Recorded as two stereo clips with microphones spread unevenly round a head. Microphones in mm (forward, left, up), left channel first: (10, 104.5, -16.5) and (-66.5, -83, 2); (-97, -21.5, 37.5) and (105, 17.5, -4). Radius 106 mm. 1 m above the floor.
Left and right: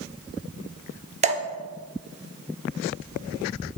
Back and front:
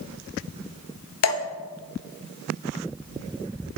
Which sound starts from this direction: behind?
Dripping, at 1.2 s.